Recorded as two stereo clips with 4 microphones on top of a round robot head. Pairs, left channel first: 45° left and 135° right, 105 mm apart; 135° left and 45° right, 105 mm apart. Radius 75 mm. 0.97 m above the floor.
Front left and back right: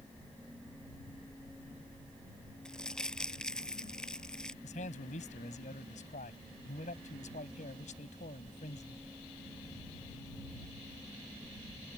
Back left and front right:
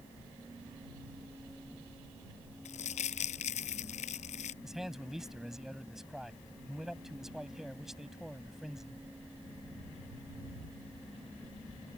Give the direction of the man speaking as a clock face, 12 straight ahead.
11 o'clock.